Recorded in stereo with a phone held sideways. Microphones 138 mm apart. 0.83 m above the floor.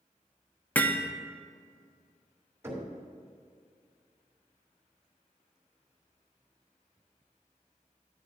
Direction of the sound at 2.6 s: 20° right (ahead or behind).